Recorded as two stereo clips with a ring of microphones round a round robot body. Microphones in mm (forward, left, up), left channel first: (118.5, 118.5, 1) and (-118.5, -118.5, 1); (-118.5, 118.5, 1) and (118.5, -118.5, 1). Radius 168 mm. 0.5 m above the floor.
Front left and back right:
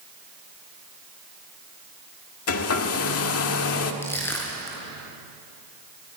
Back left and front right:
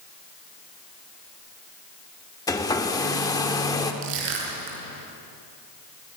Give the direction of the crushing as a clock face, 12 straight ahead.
1 o'clock.